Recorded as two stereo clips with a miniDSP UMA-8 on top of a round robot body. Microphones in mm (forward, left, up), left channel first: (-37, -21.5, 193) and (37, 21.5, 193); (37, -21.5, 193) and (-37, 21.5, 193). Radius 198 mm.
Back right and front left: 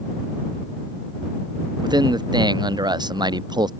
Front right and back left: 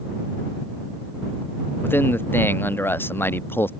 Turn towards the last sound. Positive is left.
turn(degrees=30)